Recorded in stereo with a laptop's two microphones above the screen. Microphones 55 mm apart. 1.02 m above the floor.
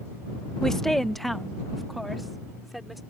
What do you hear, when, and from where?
0.6 s a woman speaking: 10° left (ahead or behind); by 3.0 s centre (ahead or behind)